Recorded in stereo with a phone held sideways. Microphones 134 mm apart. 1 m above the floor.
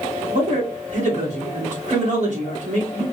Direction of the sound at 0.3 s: 65° right (ahead or behind).